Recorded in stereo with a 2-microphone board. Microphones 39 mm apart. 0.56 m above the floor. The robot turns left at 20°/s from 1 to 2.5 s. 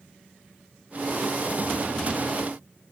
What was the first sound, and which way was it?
Only background noise.